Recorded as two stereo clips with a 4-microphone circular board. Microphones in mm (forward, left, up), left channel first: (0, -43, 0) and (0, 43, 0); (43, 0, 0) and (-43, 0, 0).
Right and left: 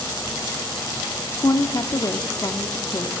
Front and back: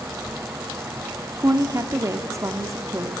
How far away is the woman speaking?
About 1.6 m.